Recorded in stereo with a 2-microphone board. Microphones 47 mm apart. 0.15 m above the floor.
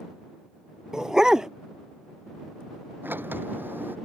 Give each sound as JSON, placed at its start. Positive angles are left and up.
{"t": 0.9, "sound": "a dog barking", "side_deg": -15}
{"t": 3.0, "sound": "a sliding door", "side_deg": -50}